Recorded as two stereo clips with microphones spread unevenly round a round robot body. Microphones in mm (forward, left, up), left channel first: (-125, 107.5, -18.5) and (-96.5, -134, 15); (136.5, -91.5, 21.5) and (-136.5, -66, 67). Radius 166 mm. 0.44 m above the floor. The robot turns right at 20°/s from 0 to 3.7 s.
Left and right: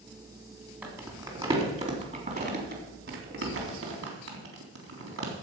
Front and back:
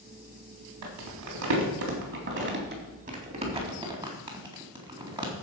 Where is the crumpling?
165° right, 3.5 m; by 5.3 s 110° right, 3.5 m.